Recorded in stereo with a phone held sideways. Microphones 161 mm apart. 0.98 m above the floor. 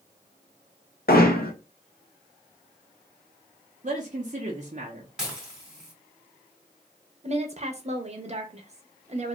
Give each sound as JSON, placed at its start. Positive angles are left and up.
{"t": 1.1, "sound": "hammering", "side_deg": 70, "distance_m": 0.7}
{"t": 3.8, "sound": "a man speaking", "side_deg": -50, "distance_m": 0.6}
{"t": 5.2, "sound": "dishes clattering", "side_deg": -5, "distance_m": 1.5}
{"t": 7.2, "sound": "a woman speaking", "side_deg": -45, "distance_m": 0.7}